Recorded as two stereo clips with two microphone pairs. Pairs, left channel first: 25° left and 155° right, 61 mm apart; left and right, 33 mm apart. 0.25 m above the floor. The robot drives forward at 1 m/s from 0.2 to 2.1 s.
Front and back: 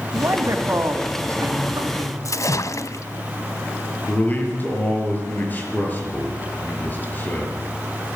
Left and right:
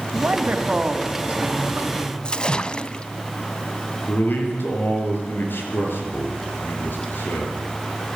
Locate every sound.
0.1 s a man speaking: 120° right, 2 m; by 2.1 s 150° right, 3.5 m
2.2 s a splash: 30° left, 0.8 m
4.1 s a man speaking: 85° left, 6 m